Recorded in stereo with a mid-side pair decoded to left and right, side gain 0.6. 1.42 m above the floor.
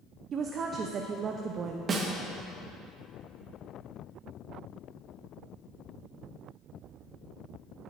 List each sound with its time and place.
0.3 s a woman speaking: 45° right, 0.7 m
1.9 s a snare drum: 35° right, 1.4 m